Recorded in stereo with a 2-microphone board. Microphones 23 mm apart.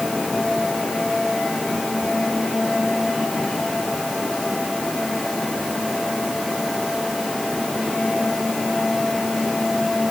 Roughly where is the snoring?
I don't hear snoring.